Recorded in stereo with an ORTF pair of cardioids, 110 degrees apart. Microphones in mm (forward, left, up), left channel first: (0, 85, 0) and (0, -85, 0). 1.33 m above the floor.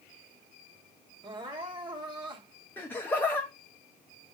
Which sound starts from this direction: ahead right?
Crying, at 1.2 s.